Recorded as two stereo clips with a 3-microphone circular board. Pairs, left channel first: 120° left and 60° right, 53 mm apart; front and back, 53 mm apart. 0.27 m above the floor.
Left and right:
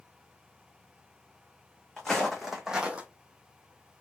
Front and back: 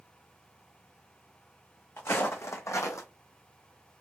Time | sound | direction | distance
2.0 | footsteps | 40° left | 1.0 m